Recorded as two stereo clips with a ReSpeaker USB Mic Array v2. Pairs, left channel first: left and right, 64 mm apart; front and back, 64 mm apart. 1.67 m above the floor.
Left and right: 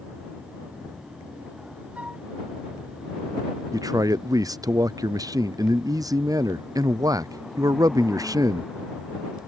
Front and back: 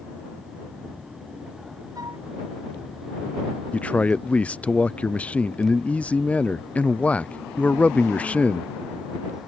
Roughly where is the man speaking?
Right.